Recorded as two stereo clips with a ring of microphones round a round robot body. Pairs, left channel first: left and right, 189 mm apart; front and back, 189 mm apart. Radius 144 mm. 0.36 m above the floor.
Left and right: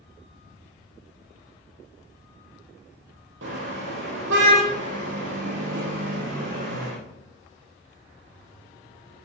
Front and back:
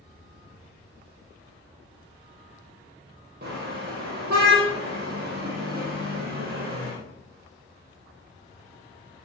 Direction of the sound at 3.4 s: 125° right.